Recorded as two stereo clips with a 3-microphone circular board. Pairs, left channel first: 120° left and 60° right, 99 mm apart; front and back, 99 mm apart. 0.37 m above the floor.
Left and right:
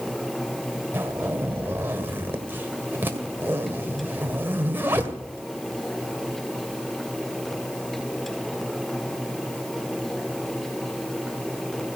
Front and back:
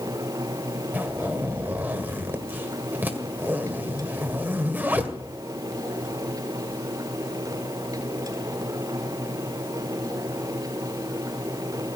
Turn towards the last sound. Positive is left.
turn(degrees=-120)